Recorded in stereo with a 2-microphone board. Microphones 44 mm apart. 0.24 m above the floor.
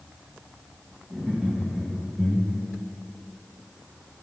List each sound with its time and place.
1.1 s laughter: 15° right (ahead or behind), 2 m; by 2.8 s 35° left (ahead or behind), 1.6 m